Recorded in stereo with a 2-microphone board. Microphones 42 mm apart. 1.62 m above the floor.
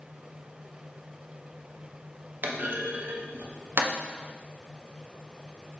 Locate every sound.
2.4 s a clunk: 55° right (ahead or behind), 0.5 m